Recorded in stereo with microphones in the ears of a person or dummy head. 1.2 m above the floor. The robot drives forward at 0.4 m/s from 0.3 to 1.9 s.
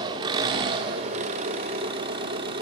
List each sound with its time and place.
0.0 s an engine running: 25° right (ahead or behind), 0.9 m; by 2.6 s 30° right (ahead or behind), 0.8 m